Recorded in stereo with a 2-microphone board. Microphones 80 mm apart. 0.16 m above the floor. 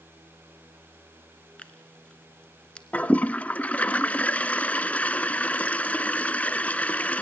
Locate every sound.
1.6 s tearing paper: 15° left (ahead or behind), 1.5 m
2.9 s a toilet flushing: 15° left (ahead or behind), 0.5 m